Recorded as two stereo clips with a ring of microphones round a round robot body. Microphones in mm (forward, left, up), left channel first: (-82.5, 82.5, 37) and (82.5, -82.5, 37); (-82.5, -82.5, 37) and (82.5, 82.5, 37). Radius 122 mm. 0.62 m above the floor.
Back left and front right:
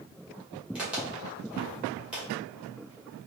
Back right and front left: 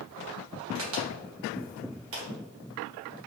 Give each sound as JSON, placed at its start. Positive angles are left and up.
{"t": 0.8, "sound": "a crack", "azimuth_deg": 40, "distance_m": 1.8}